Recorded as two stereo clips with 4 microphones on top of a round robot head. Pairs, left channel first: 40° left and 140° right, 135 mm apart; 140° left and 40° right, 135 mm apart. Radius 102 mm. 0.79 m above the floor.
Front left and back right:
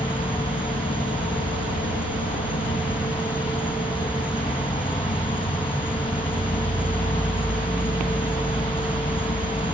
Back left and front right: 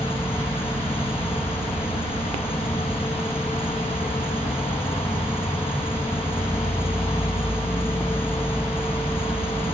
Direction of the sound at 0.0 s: 70° left.